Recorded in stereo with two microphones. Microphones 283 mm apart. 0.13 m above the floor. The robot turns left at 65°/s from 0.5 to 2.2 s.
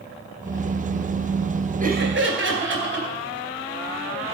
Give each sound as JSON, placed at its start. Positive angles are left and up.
{"t": 1.8, "sound": "laughter", "side_deg": -30, "distance_m": 2.5}